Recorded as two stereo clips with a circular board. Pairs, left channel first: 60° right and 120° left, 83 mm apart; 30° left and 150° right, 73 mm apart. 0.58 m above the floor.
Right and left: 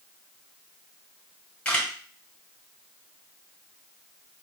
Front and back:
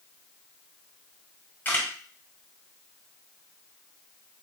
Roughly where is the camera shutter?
Ahead.